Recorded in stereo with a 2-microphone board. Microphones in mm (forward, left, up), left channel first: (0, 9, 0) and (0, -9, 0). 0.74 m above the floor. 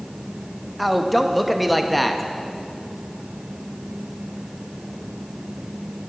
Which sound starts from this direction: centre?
A man speaking, at 0.8 s.